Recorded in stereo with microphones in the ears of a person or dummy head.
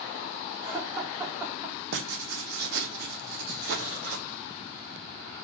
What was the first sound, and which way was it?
Laughter, 5° right (ahead or behind).